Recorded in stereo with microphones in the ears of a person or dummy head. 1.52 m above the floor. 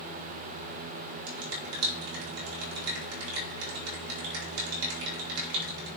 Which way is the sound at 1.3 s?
85° right.